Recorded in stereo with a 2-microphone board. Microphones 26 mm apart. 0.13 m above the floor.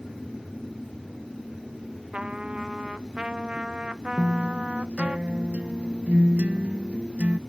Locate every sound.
2.1 s a trumpet: 45° right (ahead or behind)
4.2 s a guitar: 60° right (ahead or behind)